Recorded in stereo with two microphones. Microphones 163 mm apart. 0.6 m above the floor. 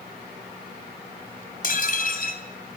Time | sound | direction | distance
1.6 | dishes clattering | 60° left (ahead or behind) | 2.5 m